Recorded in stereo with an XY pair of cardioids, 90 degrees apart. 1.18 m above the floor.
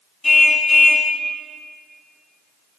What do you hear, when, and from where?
0.2 s a car horn: 25° left, 4.5 m